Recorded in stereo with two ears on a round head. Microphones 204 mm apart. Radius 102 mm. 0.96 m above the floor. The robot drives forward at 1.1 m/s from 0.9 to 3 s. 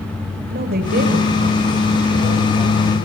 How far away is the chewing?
I don't hear chewing.